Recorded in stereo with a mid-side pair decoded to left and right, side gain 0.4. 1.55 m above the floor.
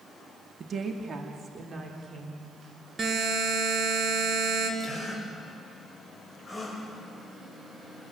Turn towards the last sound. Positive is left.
turn(degrees=0)